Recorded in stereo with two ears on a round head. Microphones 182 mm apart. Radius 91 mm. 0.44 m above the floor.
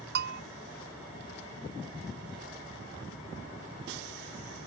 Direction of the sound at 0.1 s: 50° right (ahead or behind).